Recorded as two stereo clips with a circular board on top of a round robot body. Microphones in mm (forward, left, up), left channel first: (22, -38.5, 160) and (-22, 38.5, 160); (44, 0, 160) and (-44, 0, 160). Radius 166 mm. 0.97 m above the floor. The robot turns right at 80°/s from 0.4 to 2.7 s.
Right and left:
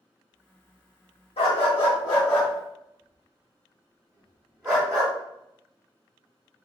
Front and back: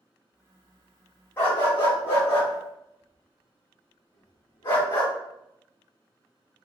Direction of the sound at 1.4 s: 70° right.